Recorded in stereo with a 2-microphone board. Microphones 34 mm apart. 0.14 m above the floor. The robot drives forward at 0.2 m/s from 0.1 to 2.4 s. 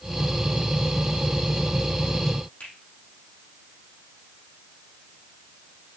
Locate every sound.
2.6 s a finger snap: 45° left (ahead or behind), 4.5 m